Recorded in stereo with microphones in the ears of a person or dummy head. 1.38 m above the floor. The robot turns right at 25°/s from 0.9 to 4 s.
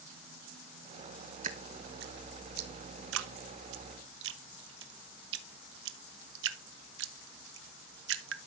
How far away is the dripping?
About 1.1 m.